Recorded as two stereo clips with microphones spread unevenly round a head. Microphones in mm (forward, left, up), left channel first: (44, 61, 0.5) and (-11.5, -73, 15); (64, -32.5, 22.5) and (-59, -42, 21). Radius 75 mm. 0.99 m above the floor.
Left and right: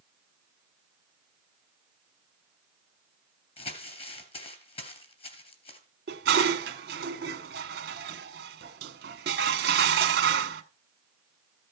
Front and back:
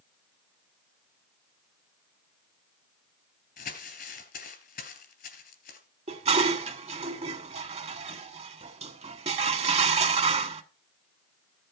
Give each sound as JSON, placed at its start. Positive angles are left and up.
{"t": 3.6, "sound": "crumpling", "azimuth_deg": 15, "distance_m": 3.0}
{"t": 6.1, "sound": "dishes clattering", "azimuth_deg": -140, "distance_m": 1.4}